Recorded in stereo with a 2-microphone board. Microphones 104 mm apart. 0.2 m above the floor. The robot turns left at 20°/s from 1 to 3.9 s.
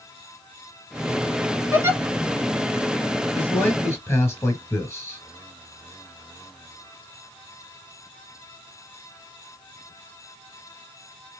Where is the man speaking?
15° left (ahead or behind), 3.5 m; by 5.2 s 25° left (ahead or behind), 3.5 m.